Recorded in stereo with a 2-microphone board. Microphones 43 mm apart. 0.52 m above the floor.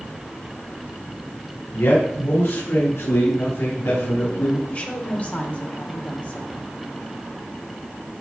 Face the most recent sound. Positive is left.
turn(degrees=35)  # may be behind; listen again after turning